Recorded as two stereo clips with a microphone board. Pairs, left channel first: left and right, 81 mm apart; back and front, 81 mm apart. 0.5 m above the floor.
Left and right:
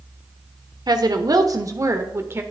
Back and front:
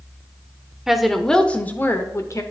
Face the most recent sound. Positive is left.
turn(degrees=-145)